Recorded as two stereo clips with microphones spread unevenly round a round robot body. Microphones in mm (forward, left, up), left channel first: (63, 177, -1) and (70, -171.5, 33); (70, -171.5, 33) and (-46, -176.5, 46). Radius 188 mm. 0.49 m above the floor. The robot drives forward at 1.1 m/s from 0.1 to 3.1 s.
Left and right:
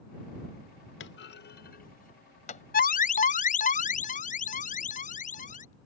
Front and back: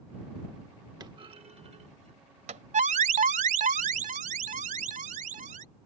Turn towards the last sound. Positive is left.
turn(degrees=160)